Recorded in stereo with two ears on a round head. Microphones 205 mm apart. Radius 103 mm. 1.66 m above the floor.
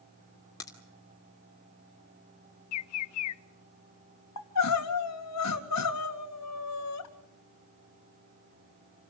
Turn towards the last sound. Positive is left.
turn(degrees=85)